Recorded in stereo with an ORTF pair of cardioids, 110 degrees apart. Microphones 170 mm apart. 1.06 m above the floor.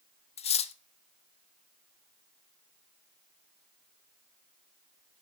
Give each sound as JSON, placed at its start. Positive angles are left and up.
{"t": 0.4, "sound": "cutlery clinking", "azimuth_deg": 40, "distance_m": 0.6}